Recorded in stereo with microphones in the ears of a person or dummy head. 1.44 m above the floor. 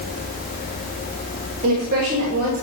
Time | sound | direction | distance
1.6 | a woman speaking | 50° right (ahead or behind) | 2.5 m